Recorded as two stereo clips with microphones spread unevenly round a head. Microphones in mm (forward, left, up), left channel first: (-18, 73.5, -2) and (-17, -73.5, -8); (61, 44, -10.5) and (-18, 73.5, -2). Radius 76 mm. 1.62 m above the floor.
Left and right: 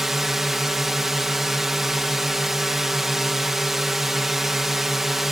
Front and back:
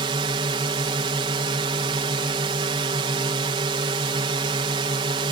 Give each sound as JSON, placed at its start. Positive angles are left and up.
{"t": 0.0, "sound": "a drone", "azimuth_deg": -175}